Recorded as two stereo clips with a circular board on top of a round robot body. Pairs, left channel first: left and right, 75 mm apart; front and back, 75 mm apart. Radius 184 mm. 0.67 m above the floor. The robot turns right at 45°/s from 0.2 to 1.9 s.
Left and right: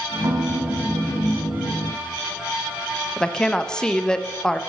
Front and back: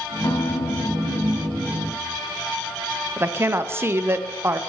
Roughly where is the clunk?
No clunk in this recording.